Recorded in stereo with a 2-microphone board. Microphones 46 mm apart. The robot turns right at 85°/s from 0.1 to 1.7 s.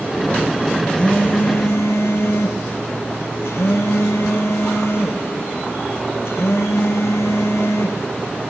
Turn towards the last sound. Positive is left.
turn(degrees=85)